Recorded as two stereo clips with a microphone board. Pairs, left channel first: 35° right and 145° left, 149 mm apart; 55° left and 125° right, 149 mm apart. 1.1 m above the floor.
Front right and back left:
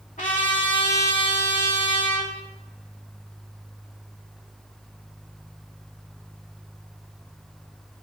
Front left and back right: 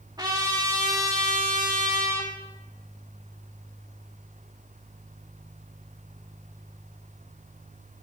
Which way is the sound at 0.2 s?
65° right.